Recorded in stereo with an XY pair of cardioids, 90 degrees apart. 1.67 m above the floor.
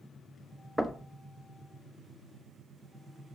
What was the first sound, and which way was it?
Knocking, 5° right.